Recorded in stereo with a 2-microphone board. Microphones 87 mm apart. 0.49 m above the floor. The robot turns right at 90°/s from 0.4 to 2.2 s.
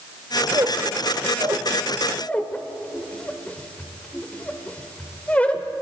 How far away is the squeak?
About 0.9 m.